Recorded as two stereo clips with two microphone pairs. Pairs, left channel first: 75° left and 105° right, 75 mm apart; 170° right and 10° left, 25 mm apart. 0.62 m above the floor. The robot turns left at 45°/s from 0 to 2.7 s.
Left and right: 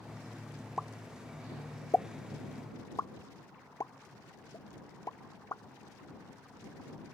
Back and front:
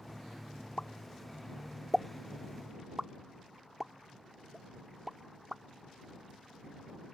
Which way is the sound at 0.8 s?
170° left.